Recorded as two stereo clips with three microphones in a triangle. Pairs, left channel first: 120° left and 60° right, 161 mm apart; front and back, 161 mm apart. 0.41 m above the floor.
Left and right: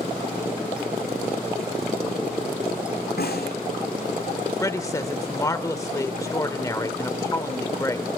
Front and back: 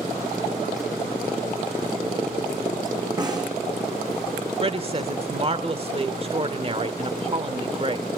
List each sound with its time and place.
3.2 s a snare drum: 115° left, 4.5 m
4.6 s a woman speaking: 175° left, 1.1 m